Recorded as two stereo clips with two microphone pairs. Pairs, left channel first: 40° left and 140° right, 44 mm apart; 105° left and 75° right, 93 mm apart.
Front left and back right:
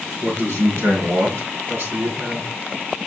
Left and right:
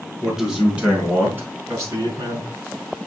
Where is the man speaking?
160° right, 4.5 m; by 2.5 s 105° right, 2.5 m.